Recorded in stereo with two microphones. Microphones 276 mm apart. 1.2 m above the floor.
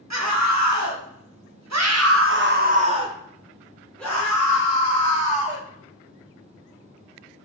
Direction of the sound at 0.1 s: 70° right (ahead or behind).